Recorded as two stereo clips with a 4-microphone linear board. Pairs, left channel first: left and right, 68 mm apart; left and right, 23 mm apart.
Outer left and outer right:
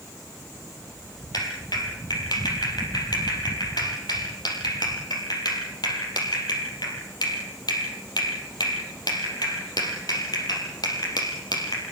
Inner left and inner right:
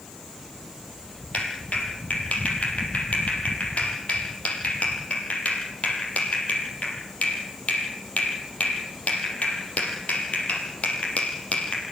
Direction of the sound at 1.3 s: 75° left (ahead or behind).